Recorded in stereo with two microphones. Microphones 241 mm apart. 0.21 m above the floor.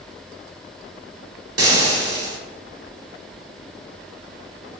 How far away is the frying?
About 0.7 m.